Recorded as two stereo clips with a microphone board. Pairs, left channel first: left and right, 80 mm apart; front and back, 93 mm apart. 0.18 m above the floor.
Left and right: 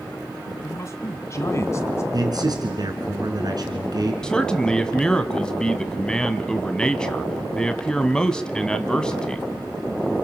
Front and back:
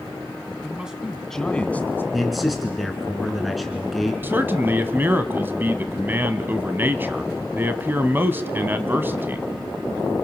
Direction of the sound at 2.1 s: 90° right.